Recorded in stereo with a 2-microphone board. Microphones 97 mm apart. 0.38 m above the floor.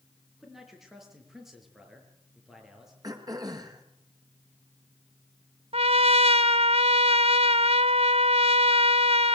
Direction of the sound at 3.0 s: 40° right (ahead or behind).